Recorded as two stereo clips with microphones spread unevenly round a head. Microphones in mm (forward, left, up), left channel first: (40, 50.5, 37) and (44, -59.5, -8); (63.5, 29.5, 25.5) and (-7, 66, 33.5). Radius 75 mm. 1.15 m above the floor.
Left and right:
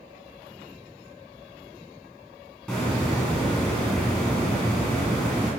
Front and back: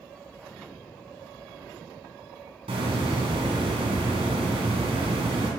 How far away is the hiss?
About 3 m.